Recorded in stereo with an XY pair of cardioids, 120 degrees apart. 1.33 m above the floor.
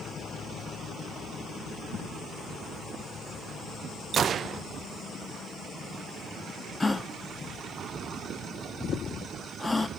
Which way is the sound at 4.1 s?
45° right.